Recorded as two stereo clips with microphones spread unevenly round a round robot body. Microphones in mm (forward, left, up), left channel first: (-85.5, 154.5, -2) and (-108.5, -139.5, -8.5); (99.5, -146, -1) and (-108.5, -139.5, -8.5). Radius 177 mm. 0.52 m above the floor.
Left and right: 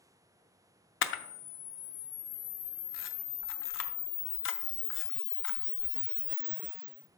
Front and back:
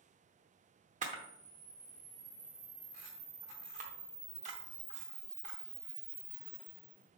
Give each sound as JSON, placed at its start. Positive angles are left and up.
{"t": 1.0, "sound": "a camera shutter", "azimuth_deg": 125, "distance_m": 0.6}